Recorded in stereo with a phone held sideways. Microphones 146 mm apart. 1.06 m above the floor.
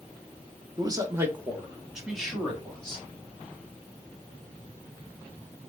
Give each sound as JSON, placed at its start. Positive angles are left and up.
{"t": 0.8, "sound": "a man speaking", "side_deg": -30, "distance_m": 1.0}